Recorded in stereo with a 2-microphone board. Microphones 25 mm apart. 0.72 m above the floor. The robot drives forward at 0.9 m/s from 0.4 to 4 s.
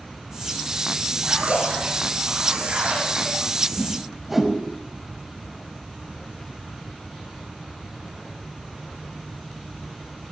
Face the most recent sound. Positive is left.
turn(degrees=-5)  # may be behind; listen again after turning